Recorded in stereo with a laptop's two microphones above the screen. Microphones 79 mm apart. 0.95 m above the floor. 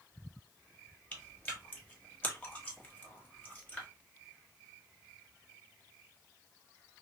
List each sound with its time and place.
1.1 s chewing: 20° left (ahead or behind), 1.4 m